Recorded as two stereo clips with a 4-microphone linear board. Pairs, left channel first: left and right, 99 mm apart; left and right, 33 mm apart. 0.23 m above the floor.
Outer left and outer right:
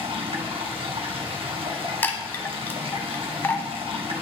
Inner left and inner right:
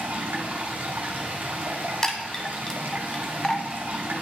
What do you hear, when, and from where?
0.0 s running water: 70° right (ahead or behind), 1.7 m
2.0 s a chime: 20° left (ahead or behind), 0.9 m